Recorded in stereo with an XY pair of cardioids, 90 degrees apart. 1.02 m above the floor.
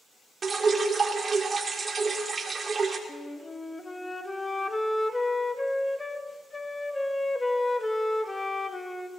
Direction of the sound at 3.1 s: 15° left.